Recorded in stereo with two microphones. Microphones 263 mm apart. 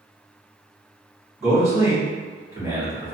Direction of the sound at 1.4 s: 10° right (ahead or behind).